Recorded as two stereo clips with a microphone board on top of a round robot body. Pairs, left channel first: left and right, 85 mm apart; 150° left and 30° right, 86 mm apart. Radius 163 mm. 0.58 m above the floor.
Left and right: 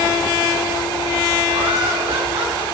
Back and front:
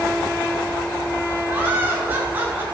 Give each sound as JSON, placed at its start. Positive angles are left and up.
{"t": 1.5, "sound": "laughter", "azimuth_deg": -100, "distance_m": 9.0}